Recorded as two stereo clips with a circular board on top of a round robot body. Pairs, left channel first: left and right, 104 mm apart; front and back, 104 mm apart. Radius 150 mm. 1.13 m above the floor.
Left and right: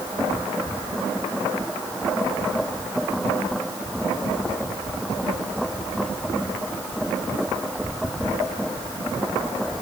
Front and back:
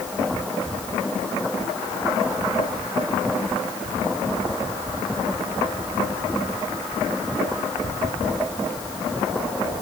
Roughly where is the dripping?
I don't hear dripping.